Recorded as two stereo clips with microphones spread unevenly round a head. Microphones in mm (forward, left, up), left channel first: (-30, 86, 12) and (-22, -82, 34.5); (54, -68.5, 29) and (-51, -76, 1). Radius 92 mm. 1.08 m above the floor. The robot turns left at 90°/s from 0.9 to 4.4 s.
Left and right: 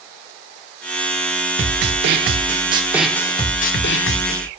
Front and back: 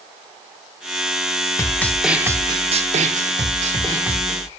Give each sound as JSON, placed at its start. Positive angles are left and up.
{"t": 1.6, "sound": "a snare drum", "azimuth_deg": -40, "distance_m": 1.0}